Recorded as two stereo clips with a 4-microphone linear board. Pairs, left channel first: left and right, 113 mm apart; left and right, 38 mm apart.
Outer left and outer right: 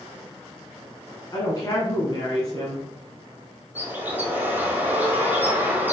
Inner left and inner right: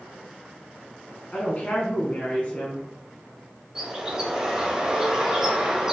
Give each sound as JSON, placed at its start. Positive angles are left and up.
{"t": 1.3, "sound": "a woman speaking", "side_deg": 35, "distance_m": 1.3}
{"t": 3.8, "sound": "a bird", "side_deg": -15, "distance_m": 1.5}